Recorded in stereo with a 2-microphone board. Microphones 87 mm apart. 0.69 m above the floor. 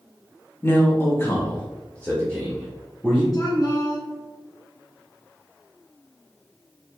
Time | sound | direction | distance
0.6 | a man speaking | 25° left (ahead or behind) | 0.9 m
3.3 | a woman speaking | 50° left (ahead or behind) | 1.6 m